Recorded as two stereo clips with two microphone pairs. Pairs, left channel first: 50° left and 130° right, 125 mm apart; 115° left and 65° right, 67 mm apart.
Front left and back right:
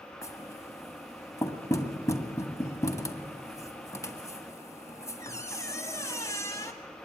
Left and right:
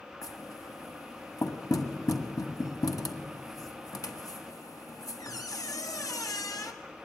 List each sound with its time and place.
0.2 s knocking: 115° left, 1.6 m